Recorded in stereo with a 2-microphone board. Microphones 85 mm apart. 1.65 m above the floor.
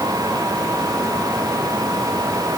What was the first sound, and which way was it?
Only background noise.